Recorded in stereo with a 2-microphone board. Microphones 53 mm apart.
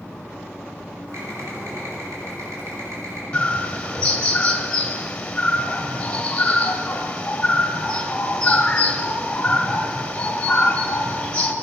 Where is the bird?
20° left (ahead or behind), 1.6 m.